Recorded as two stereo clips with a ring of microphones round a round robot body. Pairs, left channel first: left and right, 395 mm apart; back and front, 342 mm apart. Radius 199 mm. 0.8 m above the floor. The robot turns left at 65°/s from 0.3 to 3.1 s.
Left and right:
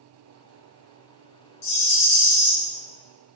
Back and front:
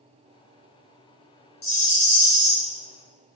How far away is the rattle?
About 1.3 m.